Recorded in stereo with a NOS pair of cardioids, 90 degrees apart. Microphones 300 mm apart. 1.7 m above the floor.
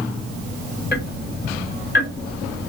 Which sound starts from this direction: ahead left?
Ticking, at 0.9 s.